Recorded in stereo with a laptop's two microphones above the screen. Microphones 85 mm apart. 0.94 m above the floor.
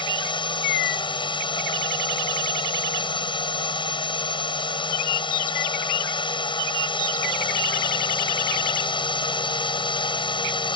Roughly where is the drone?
Left.